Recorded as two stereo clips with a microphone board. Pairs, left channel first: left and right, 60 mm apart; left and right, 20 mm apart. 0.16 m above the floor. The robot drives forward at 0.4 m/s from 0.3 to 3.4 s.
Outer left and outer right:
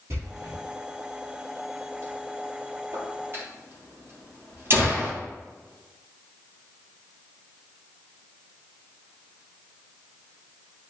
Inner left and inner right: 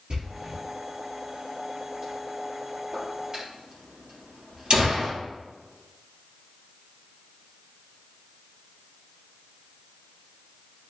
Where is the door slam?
60° right (ahead or behind), 2.5 m; by 5.1 s 45° right (ahead or behind), 3 m.